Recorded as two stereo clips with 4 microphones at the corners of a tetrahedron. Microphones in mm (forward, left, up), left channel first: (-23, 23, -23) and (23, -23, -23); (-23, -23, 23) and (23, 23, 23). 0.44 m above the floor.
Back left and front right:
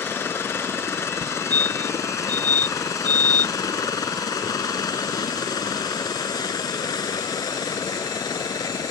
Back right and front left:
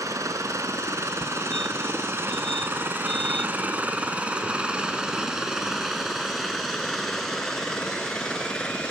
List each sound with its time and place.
0.0 s a helicopter: 80° left; by 8.9 s 150° left
1.2 s a fire alarm: 55° right